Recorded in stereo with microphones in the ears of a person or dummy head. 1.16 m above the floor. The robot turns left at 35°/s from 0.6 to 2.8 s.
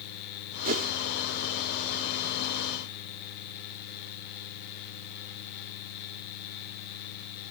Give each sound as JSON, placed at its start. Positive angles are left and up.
{"t": 0.7, "sound": "a whoosh", "side_deg": -45}